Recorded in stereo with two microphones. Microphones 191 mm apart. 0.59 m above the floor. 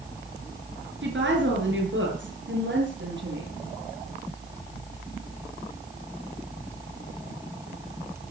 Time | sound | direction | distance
1.0 | a woman speaking | 80° right | 7.5 m